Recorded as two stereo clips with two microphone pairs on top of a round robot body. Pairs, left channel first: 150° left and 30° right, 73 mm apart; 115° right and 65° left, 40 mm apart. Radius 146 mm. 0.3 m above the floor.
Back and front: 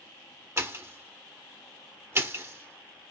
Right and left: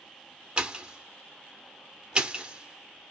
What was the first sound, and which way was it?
A pop, 20° left.